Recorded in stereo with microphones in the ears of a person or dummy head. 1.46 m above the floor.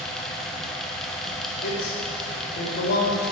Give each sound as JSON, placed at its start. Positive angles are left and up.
{"t": 0.0, "sound": "a fan", "side_deg": 0, "distance_m": 1.0}
{"t": 1.6, "sound": "a man speaking", "side_deg": 65, "distance_m": 3.0}